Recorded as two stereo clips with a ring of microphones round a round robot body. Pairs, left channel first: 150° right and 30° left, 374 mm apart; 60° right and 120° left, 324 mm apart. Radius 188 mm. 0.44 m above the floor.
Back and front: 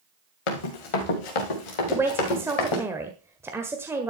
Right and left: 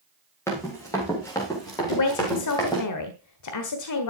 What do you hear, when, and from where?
0.5 s running footsteps: 145° right, 3.5 m; by 2.8 s 140° right, 5 m
1.9 s a man speaking: 55° right, 1.4 m